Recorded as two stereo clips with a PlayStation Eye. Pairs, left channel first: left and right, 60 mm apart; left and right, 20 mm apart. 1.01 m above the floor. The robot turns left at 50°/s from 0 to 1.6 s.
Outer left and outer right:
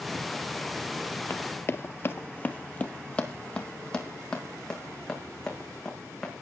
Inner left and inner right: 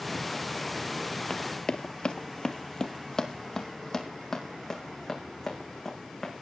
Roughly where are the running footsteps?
Left.